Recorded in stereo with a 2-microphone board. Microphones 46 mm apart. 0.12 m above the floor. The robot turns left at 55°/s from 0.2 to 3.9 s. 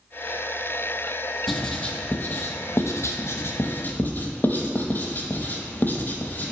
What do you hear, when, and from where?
1.5 s writing: centre (ahead or behind), 0.6 m; by 6.5 s 45° left (ahead or behind), 0.6 m